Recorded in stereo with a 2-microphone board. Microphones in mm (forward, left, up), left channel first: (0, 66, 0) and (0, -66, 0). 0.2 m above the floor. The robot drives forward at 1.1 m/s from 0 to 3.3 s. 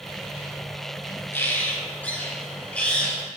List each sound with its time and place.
1.3 s a bird: 20° left (ahead or behind), 2.5 m; by 3.2 s 10° left (ahead or behind), 4 m